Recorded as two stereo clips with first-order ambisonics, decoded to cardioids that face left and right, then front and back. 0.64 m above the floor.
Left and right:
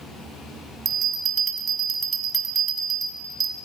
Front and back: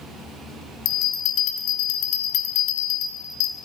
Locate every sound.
0.8 s a bell: 30° right, 0.9 m